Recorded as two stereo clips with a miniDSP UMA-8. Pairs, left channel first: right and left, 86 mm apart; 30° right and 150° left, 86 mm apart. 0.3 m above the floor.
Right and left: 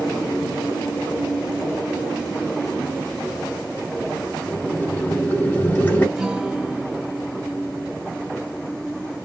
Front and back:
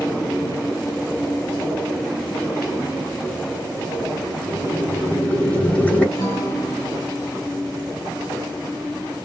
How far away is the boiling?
About 1.6 m.